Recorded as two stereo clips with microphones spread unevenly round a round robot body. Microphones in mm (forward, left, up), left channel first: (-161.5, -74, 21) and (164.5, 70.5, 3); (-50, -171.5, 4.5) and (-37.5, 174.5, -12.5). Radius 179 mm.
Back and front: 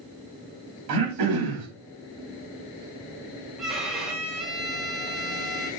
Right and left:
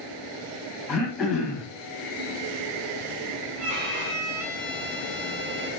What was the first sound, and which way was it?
Throat clearing, straight ahead.